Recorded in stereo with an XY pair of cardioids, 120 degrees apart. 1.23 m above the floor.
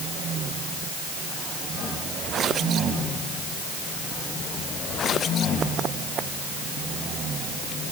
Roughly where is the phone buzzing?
I don't hear a phone buzzing.